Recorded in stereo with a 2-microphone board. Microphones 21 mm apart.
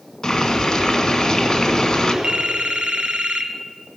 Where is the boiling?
25° left (ahead or behind), 1.7 m.